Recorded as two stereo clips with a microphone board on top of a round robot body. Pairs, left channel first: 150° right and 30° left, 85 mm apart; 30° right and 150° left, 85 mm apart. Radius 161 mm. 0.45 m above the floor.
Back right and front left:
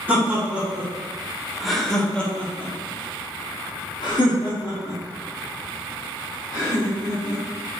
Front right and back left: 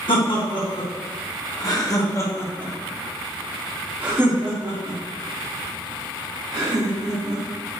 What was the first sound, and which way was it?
Laughter, 40° right.